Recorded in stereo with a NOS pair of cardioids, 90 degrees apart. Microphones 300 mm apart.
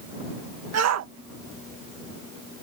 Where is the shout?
60° right.